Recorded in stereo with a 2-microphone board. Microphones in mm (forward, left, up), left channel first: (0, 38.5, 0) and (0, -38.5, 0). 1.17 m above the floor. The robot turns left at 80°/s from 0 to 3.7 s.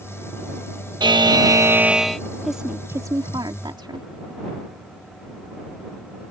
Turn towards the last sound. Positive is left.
turn(degrees=-100)